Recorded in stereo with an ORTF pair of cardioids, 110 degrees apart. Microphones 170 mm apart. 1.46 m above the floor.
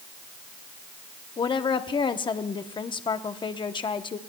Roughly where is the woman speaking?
Ahead left.